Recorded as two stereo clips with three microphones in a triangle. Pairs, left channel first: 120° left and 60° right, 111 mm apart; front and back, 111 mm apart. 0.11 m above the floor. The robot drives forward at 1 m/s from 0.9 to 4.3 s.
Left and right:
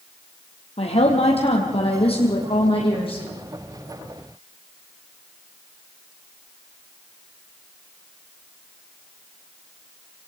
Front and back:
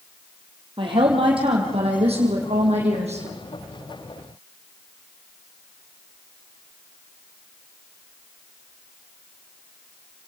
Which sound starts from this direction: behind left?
A woman speaking, at 0.8 s.